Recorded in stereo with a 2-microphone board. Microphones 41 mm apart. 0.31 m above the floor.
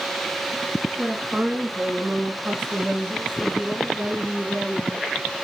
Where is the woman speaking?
45° right (ahead or behind), 2.5 m; by 5.1 s 65° right (ahead or behind), 3 m.